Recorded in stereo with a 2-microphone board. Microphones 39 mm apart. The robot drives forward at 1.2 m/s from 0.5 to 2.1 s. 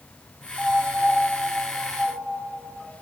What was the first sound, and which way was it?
A piano, 10° left (ahead or behind).